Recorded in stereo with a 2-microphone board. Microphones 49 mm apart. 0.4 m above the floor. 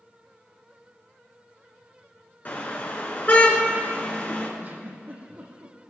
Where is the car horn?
40° left (ahead or behind), 3 m.